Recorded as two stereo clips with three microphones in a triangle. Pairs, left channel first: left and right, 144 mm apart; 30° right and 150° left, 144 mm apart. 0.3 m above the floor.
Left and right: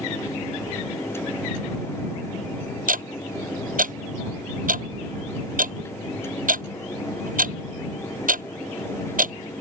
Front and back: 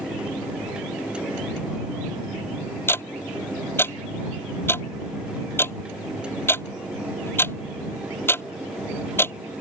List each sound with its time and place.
2.9 s ticking: 105° right